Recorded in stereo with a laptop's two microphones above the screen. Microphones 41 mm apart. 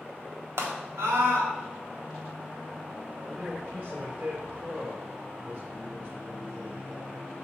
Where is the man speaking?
30° right (ahead or behind), 3 m.